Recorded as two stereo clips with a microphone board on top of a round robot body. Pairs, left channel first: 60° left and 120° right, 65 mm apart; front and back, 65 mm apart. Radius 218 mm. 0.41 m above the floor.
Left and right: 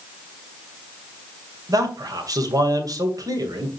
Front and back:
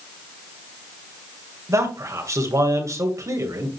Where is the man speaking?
145° right, 2.5 m.